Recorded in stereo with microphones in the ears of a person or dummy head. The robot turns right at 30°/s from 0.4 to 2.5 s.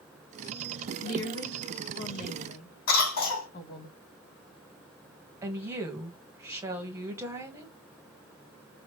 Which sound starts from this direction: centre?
A woman speaking, at 5.4 s.